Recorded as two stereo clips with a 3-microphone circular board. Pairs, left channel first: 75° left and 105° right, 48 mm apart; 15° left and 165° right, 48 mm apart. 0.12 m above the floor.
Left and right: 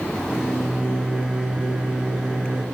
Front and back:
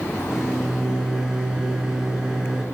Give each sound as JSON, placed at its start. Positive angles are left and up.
{"t": 0.3, "sound": "a microwave", "azimuth_deg": -120, "distance_m": 0.8}